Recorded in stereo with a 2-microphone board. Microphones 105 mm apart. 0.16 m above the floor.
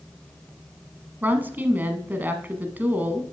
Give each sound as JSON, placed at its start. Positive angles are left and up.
{"t": 1.2, "sound": "a woman speaking", "side_deg": -20, "distance_m": 1.0}